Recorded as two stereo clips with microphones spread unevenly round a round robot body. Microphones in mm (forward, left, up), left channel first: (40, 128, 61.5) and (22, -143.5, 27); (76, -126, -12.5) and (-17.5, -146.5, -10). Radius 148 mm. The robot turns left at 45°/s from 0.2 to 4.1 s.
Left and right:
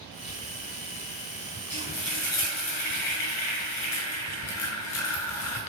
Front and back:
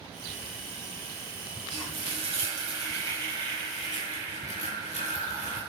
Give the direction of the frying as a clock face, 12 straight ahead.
7 o'clock.